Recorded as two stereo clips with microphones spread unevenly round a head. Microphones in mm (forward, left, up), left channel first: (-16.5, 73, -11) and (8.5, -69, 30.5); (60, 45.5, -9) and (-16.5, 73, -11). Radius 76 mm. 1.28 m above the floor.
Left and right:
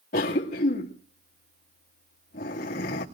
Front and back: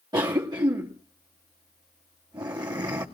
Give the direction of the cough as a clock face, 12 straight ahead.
8 o'clock.